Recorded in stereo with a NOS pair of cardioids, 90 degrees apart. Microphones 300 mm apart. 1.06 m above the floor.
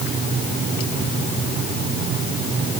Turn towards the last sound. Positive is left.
No sound to turn to.